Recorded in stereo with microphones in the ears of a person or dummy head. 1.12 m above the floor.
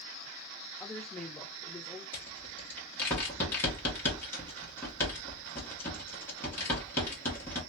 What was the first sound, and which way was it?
A woman speaking, 5° left (ahead or behind).